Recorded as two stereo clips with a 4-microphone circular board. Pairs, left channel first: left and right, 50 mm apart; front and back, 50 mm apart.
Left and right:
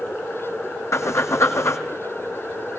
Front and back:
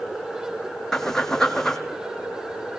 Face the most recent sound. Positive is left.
turn(degrees=80)